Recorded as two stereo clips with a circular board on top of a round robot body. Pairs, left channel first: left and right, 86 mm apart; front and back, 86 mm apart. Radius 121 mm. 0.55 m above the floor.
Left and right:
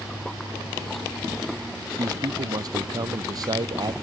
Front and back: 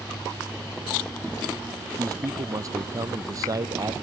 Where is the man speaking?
130° right.